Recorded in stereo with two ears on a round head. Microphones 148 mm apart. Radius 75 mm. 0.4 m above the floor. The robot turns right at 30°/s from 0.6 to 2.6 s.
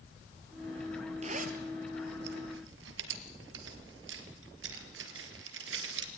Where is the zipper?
40° right (ahead or behind), 2.5 m; by 6.1 s 85° right, 2.5 m.